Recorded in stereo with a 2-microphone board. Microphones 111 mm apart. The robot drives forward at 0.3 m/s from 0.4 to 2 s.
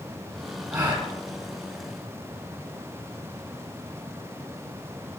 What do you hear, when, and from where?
0.7 s a gasp: 35° right (ahead or behind), 3.5 m